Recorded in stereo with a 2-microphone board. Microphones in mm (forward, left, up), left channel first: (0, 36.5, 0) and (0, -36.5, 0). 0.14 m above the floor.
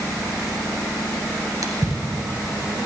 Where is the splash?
55° right (ahead or behind), 1.2 m.